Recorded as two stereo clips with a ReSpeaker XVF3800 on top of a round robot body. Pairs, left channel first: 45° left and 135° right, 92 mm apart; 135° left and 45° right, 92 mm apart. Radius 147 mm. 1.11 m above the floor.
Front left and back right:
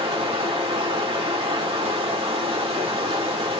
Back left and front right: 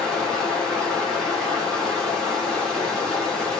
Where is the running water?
145° right, 1.9 m.